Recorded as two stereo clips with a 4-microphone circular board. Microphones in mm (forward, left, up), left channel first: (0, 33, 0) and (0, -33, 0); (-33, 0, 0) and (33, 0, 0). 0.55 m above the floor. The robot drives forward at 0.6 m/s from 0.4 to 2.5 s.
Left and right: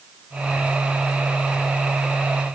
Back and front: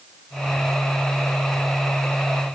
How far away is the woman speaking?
No woman speaking in this recording.